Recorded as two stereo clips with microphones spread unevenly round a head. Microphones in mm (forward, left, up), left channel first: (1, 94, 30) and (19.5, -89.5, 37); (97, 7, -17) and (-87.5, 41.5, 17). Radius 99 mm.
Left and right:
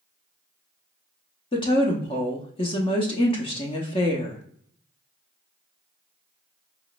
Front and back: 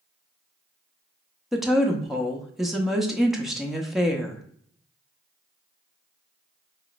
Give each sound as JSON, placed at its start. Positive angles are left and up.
{"t": 1.5, "sound": "a woman speaking", "azimuth_deg": 110, "distance_m": 0.6}